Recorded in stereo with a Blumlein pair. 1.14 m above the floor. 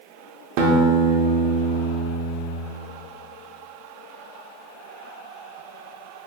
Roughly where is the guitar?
Ahead right.